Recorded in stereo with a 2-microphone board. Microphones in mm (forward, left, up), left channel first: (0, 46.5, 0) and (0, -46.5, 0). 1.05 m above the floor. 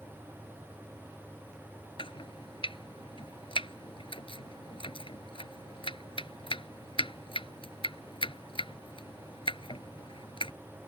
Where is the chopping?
75° left (ahead or behind).